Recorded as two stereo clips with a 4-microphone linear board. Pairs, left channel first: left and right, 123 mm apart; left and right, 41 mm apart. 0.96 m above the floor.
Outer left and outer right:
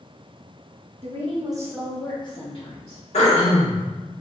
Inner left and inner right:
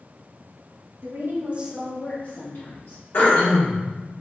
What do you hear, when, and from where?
1.0 s a woman speaking: 65° right (ahead or behind), 1.1 m; by 3.0 s 60° left (ahead or behind), 1.7 m
3.1 s throat clearing: 65° left (ahead or behind), 1.4 m